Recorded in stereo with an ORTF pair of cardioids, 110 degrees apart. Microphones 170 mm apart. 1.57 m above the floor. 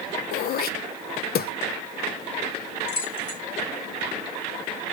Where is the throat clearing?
65° left, 0.6 m.